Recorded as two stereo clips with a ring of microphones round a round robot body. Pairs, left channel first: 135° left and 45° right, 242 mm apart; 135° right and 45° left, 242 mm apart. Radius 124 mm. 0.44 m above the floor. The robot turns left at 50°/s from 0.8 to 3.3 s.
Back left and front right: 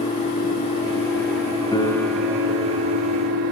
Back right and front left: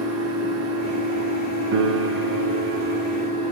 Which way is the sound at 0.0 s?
70° left.